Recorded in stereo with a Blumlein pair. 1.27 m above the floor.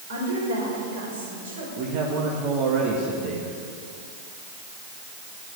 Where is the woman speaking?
60° right, 5.5 m.